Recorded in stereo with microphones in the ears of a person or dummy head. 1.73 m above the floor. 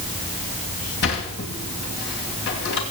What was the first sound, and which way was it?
A sliding door, 60° left (ahead or behind).